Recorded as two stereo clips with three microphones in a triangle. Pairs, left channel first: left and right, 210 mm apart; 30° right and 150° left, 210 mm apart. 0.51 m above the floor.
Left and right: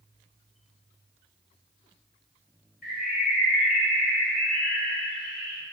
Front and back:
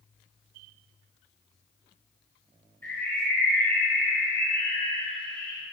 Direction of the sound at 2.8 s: 50° left.